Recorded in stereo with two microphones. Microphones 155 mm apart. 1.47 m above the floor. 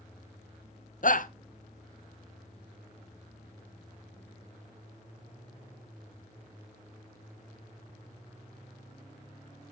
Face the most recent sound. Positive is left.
turn(degrees=60)  # may be behind; listen again after turning